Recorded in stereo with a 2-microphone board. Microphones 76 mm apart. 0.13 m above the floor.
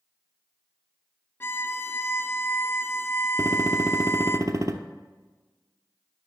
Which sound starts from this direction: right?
A gunshot, at 3.4 s.